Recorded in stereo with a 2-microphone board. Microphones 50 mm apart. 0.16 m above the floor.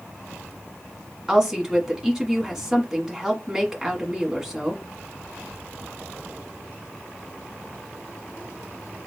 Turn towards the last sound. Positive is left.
turn(degrees=-10)  # may be behind; listen again after turning